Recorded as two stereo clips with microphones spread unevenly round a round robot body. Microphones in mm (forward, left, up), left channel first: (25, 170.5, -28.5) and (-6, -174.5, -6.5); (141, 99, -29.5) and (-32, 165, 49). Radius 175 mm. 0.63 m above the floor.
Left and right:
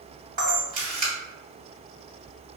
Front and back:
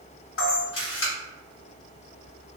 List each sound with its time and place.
0.4 s a camera shutter: 25° right, 1.8 m